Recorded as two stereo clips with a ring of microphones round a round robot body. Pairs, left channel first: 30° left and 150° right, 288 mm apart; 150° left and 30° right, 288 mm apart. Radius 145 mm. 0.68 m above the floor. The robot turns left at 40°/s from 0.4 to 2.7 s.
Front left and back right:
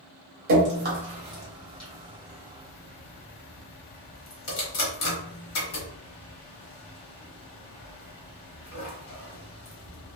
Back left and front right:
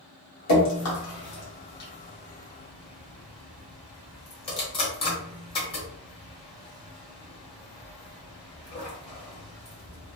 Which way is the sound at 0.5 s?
170° left.